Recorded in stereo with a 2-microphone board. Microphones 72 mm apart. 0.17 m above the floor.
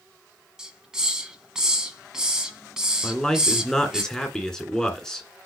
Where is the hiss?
10° right (ahead or behind), 1.7 m.